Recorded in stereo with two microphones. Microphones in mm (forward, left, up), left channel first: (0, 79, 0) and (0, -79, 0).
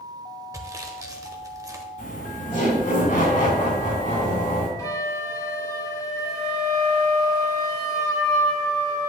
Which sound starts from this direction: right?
Sawing, at 0.5 s.